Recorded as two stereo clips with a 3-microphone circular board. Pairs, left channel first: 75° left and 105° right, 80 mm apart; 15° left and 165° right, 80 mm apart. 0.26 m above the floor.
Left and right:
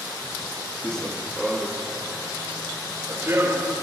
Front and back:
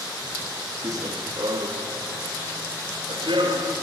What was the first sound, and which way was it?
Running footsteps, 155° left.